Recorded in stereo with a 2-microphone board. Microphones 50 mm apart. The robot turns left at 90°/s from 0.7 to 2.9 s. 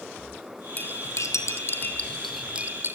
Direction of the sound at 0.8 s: 35° left (ahead or behind).